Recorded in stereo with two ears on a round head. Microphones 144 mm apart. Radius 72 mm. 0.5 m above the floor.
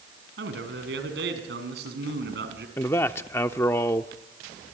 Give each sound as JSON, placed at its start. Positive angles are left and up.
{"t": 0.4, "sound": "a man speaking", "side_deg": -75, "distance_m": 5.5}
{"t": 2.8, "sound": "a man speaking", "side_deg": 15, "distance_m": 0.7}